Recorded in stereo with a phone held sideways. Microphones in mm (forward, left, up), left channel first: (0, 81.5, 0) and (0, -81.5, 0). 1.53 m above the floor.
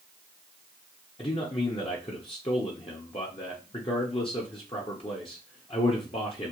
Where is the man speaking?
35° left (ahead or behind), 0.8 m.